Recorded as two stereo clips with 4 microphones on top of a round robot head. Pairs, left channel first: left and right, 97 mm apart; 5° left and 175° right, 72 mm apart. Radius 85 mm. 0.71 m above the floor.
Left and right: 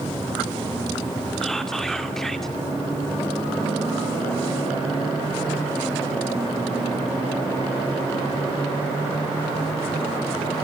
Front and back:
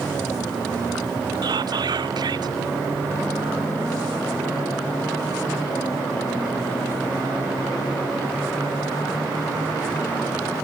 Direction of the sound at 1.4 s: 175° left.